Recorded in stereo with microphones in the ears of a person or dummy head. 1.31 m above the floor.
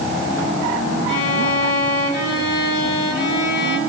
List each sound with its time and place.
1.1 s a violin: 65° left (ahead or behind), 4 m